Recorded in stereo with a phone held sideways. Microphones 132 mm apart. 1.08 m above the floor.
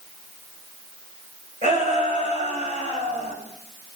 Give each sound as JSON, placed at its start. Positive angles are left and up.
{"t": 1.6, "sound": "a shout", "side_deg": -65, "distance_m": 5.5}